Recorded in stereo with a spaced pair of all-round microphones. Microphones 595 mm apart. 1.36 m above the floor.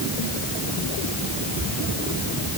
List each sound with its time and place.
Only background noise.